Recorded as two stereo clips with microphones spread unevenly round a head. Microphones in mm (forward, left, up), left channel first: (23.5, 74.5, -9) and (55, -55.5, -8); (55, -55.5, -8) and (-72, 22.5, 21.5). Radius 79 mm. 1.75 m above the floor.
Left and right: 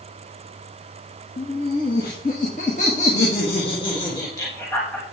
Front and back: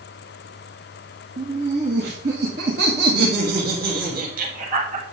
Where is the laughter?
130° left, 3 m; by 5.0 s 175° right, 2.5 m.